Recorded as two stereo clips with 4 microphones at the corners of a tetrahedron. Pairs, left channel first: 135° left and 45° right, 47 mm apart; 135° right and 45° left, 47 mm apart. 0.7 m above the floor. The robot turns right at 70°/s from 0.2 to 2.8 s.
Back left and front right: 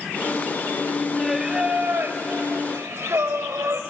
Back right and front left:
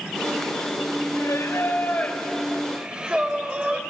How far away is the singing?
About 1.7 m.